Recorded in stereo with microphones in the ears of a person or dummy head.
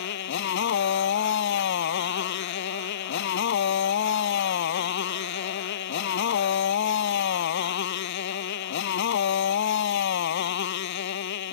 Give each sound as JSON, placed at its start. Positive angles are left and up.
{"t": 0.0, "sound": "a motorcycle", "side_deg": 70}